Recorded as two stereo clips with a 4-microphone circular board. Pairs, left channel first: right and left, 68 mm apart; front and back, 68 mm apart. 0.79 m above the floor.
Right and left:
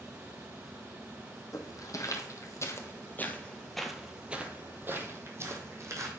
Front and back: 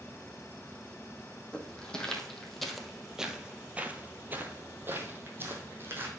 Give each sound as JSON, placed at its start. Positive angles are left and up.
{"t": 1.5, "sound": "footsteps", "azimuth_deg": -75, "distance_m": 1.5}